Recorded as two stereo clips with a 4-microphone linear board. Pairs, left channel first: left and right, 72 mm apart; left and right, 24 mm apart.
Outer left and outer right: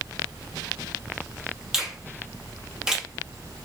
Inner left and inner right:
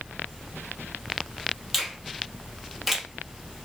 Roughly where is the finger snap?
Centre.